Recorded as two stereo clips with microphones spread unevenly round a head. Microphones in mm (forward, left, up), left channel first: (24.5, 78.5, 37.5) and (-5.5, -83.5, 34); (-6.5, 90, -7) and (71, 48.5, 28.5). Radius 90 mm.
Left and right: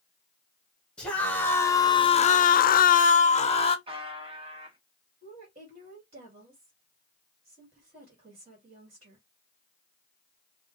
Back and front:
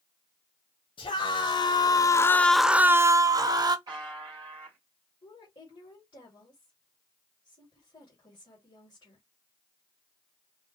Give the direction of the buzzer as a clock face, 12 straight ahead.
1 o'clock.